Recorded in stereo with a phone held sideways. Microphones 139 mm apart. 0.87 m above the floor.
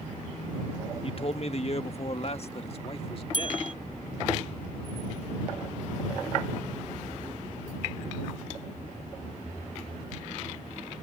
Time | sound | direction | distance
1.0 | a man speaking | 40° left (ahead or behind) | ?
3.3 | a bell | 75° right (ahead or behind) | ?